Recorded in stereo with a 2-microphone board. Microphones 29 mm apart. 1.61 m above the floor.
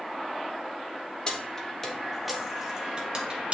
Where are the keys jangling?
25° left (ahead or behind), 1.3 m; by 3.5 s 40° right (ahead or behind), 1.6 m.